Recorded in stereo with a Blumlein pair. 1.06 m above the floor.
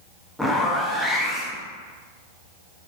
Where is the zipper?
Straight ahead, 0.8 m.